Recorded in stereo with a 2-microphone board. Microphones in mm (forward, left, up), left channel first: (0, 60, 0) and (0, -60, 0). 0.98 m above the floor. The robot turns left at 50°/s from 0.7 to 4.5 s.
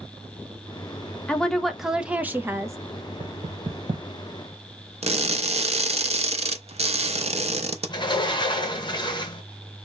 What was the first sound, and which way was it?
A woman speaking, 20° left.